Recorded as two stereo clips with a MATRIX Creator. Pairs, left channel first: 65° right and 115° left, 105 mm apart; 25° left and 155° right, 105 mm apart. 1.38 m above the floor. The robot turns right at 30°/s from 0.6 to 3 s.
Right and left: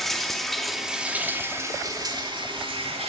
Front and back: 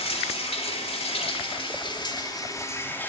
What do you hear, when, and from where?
0.0 s running water: 20° left, 3 m; by 3.1 s 90° left, 3 m